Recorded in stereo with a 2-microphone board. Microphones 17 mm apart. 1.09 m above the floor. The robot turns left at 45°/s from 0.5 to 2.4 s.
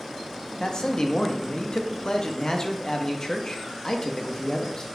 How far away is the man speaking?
About 0.7 m.